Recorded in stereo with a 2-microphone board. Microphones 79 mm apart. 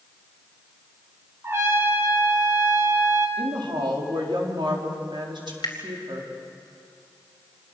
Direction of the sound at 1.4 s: 35° right (ahead or behind).